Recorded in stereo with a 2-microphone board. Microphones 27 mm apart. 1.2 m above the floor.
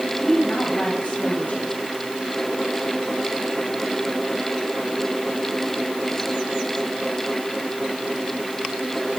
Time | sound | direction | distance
0.2 | a woman speaking | 55° left (ahead or behind) | 8 m